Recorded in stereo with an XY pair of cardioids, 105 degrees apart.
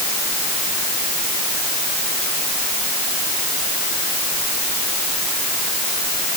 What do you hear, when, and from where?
Only background noise.